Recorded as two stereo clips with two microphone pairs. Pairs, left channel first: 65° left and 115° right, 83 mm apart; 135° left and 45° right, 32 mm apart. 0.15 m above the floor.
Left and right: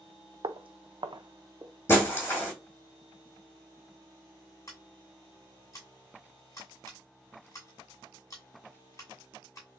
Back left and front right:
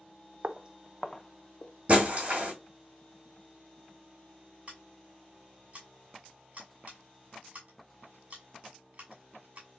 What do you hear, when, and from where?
0.4 s footsteps: 95° right, 0.5 m; by 1.7 s 170° right, 0.7 m
1.9 s breaking glass: 5° left, 2 m
4.7 s scissors: 10° left, 2 m